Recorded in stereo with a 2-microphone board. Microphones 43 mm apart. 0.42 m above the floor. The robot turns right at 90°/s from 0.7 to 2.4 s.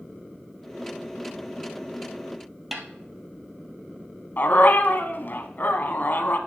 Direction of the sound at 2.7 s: 5° right (ahead or behind).